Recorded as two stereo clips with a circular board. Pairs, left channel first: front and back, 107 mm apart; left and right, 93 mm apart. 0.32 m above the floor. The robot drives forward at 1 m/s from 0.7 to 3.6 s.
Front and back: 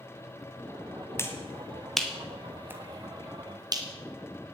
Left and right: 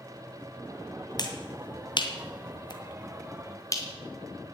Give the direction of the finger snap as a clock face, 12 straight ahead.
10 o'clock.